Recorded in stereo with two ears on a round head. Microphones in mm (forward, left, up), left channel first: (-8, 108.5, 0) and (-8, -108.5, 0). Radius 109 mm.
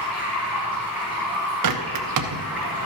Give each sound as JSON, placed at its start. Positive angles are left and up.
{"t": 0.0, "sound": "running water", "side_deg": -10, "distance_m": 5.0}
{"t": 1.6, "sound": "a bird", "side_deg": -85, "distance_m": 0.8}